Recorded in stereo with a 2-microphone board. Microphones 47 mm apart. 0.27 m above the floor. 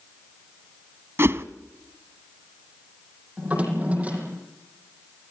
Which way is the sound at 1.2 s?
60° right (ahead or behind).